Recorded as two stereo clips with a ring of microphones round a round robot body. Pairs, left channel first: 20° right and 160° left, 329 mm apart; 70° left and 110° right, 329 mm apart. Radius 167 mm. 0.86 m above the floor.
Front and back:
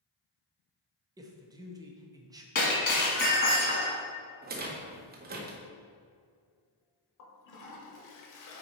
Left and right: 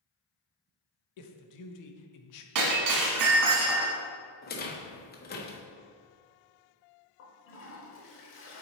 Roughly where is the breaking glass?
Right.